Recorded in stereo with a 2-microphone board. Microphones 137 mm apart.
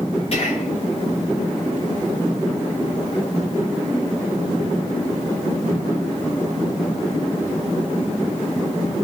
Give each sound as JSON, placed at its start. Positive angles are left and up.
{"t": 0.3, "sound": "whispering", "side_deg": 50, "distance_m": 2.5}